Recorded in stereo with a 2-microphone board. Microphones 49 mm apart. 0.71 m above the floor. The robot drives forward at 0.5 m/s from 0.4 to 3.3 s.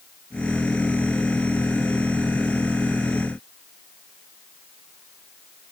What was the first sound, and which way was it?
Only background noise.